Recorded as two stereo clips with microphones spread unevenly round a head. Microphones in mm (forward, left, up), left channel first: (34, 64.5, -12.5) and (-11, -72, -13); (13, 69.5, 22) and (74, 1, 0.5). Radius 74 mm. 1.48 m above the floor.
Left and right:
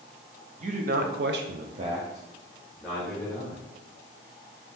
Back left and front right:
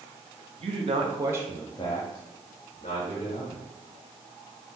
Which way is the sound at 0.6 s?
65° right.